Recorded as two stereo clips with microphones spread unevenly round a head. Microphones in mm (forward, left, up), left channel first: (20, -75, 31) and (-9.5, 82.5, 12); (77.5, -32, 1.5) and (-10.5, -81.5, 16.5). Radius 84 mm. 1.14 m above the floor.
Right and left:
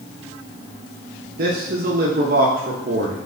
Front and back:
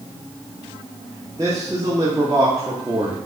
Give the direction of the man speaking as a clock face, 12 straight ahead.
7 o'clock.